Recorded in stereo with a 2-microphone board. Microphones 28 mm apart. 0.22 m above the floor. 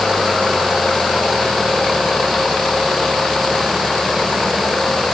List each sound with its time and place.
Only background noise.